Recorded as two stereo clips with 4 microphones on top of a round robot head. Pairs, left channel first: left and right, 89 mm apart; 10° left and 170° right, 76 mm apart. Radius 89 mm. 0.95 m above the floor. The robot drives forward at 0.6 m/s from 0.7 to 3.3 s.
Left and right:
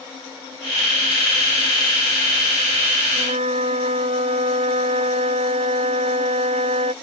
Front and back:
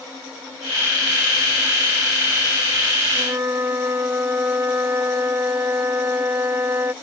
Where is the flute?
100° right; by 6.9 s 105° right.